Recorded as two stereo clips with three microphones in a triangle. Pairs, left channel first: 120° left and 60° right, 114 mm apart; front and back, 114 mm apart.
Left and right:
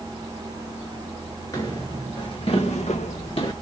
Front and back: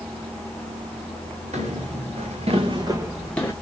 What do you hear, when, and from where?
1.5 s footsteps: straight behind, 2 m; by 3.5 s 70° left, 1.0 m